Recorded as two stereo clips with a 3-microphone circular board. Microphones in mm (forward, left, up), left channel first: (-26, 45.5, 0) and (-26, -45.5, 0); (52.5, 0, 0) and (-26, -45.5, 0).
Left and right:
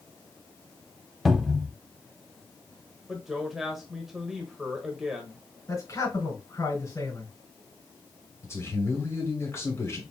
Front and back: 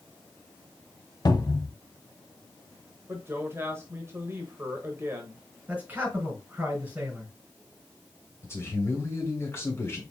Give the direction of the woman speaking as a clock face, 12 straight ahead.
6 o'clock.